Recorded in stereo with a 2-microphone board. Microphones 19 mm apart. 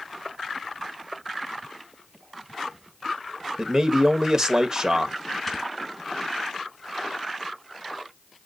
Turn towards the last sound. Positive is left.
turn(degrees=5)  # may be behind; listen again after turning